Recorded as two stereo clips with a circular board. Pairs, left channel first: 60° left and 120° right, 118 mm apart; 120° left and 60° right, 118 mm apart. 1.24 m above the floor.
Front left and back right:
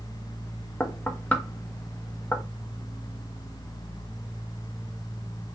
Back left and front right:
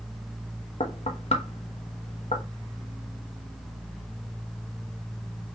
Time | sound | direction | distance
0.8 | knocking | 135° left | 0.9 m